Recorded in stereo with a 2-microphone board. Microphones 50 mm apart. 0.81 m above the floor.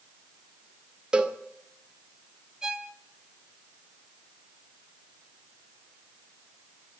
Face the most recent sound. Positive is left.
turn(degrees=-10)  # may be behind; listen again after turning